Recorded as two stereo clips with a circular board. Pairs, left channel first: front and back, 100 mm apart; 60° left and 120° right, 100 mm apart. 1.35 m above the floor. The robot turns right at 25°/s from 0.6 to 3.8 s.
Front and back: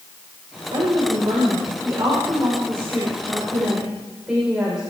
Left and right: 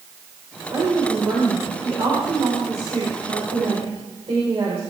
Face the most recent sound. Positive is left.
turn(degrees=-95)